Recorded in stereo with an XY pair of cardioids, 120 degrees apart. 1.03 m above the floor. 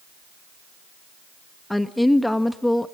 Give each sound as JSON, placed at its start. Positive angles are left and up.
{"t": 1.7, "sound": "a woman speaking", "azimuth_deg": 10, "distance_m": 1.3}